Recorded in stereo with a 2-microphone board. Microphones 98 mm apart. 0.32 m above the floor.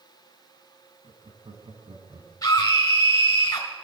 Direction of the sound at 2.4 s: 40° left (ahead or behind).